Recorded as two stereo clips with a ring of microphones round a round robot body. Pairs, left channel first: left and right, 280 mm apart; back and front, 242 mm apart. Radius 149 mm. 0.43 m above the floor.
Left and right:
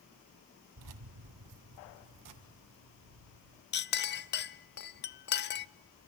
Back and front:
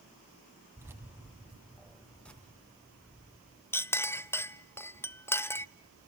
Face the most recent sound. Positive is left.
turn(degrees=105)